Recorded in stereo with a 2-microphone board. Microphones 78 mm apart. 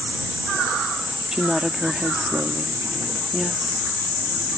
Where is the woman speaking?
5° right (ahead or behind).